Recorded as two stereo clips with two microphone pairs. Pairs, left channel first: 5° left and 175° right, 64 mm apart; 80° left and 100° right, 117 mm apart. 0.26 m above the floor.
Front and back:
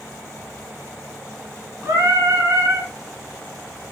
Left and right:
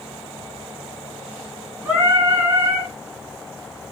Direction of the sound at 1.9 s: 175° right.